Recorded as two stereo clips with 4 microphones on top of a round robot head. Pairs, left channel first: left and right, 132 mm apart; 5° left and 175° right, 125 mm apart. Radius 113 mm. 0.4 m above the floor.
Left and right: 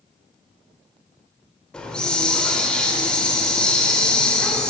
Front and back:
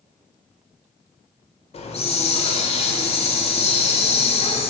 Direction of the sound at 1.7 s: 10° left.